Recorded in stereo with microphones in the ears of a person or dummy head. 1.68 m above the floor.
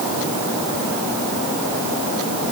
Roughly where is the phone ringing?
I don't hear a phone ringing.